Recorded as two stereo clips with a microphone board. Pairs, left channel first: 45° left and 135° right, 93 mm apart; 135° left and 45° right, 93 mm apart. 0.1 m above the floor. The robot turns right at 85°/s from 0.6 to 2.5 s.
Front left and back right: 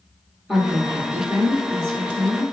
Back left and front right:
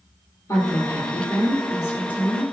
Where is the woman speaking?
140° left, 1.4 m; by 2.4 s 65° right, 1.4 m.